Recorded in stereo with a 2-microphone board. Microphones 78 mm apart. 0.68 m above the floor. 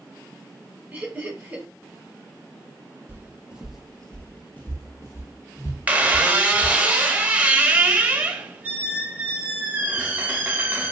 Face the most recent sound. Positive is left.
turn(degrees=-20)  # may be behind; listen again after turning